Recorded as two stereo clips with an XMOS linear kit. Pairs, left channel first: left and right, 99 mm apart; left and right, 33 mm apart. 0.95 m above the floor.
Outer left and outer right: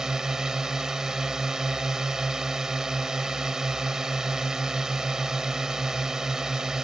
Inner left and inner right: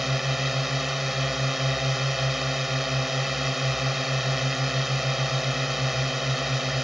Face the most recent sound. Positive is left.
turn(degrees=-5)  # may be behind; listen again after turning